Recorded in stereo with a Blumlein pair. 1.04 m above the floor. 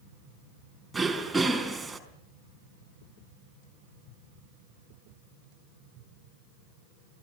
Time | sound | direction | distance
0.9 | throat clearing | 5° right | 4.5 m